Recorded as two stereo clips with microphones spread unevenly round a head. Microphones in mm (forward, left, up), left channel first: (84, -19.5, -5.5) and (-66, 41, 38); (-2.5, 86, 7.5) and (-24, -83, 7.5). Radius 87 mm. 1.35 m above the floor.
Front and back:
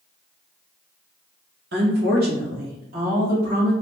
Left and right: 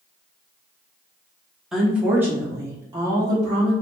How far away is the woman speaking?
About 1.1 m.